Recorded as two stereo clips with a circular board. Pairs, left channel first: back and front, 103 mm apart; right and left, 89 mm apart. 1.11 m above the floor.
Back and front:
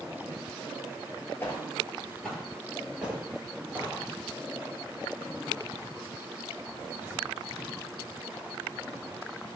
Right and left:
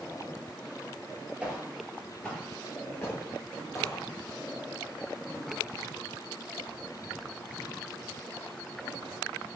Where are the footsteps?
155° left, 1.1 m; by 4.1 s 65° right, 1.6 m.